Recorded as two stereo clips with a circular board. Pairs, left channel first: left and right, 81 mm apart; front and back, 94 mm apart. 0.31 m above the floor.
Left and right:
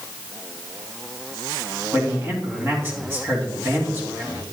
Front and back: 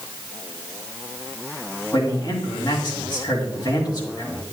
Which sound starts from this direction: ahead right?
A man speaking, at 1.9 s.